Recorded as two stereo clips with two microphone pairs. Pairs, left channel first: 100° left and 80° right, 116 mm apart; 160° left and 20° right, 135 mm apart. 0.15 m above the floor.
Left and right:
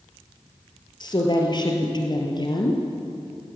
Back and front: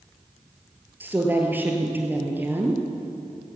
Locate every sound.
1.0 s a woman speaking: 55° left, 2.5 m